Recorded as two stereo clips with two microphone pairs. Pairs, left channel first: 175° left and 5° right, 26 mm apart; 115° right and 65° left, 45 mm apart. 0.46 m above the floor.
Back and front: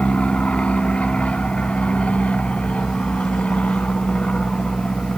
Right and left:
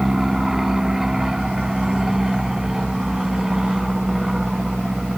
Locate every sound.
0.0 s an aircraft: 145° left